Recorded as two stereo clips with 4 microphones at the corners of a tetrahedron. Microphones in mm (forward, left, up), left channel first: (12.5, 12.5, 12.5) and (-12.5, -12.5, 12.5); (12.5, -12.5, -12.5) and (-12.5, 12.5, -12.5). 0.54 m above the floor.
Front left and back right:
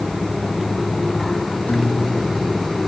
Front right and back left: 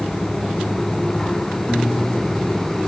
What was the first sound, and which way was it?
A guitar, 10° left.